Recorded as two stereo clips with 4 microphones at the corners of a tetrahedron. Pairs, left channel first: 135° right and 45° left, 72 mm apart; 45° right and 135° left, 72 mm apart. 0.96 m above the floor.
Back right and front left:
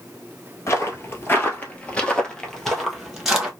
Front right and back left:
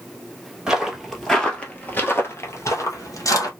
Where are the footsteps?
150° right, 1.2 m; by 3.5 s 35° right, 1.4 m.